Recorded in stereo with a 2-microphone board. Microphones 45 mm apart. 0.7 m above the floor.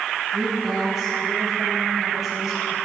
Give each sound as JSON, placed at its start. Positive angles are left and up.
{"t": 0.3, "sound": "a woman speaking", "side_deg": -5, "distance_m": 5.0}